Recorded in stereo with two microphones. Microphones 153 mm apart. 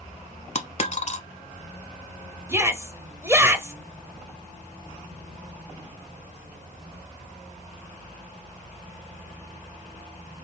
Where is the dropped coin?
50° left (ahead or behind), 0.7 m.